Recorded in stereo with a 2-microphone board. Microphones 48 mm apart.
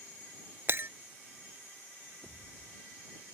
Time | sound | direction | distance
0.7 | breaking glass | 55° right (ahead or behind) | ?
2.2 | a pop | 60° right (ahead or behind) | ?